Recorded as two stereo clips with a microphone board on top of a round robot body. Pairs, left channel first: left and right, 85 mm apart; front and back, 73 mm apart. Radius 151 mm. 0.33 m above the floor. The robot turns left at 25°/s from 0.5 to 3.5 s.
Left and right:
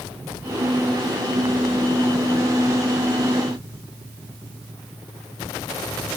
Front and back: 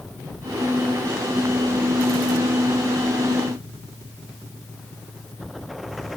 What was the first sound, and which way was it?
Only background noise.